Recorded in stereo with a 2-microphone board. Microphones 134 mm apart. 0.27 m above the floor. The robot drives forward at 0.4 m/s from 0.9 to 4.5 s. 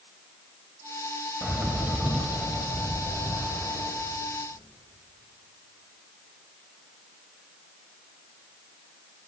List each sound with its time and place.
1.4 s a bird: 5° right (ahead or behind), 0.5 m